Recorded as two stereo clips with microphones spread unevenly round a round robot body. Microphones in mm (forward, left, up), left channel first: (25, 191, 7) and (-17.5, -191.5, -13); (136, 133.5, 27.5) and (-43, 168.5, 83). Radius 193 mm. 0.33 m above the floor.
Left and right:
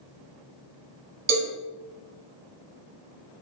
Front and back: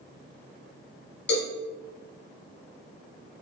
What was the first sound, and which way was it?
A cowbell, 35° right.